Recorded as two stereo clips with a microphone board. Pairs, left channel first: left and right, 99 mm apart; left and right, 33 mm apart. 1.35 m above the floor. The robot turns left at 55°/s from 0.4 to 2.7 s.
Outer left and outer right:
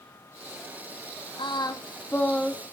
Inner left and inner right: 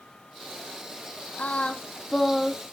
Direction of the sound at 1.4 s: 60° left.